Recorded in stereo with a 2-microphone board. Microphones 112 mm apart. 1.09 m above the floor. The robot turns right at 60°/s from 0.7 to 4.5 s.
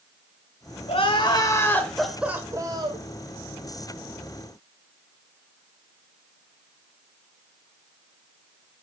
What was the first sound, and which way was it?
Crying, 110° left.